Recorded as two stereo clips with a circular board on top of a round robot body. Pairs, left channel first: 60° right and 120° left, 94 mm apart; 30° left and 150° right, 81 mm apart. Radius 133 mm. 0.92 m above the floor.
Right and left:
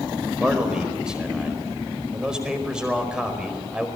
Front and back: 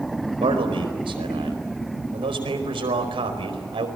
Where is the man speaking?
160° right, 5 m.